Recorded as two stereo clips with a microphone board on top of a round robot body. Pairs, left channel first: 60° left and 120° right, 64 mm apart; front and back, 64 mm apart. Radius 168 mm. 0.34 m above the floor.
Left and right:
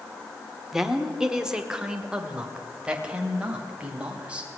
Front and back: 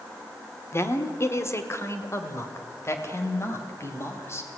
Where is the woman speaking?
35° right, 2 m; by 4.5 s 50° right, 4.5 m.